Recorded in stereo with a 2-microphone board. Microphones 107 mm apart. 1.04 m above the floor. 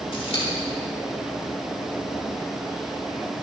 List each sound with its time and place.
0.1 s scissors: 65° left (ahead or behind), 4.5 m